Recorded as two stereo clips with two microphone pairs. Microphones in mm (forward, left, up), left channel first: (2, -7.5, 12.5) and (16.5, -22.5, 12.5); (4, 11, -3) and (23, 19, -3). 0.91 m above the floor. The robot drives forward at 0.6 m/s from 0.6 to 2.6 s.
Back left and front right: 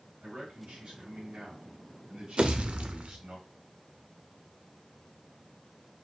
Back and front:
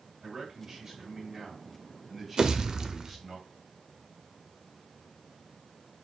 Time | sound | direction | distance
0.2 | a man speaking | 40° right | 2.5 m
2.4 | a pop | 20° right | 0.6 m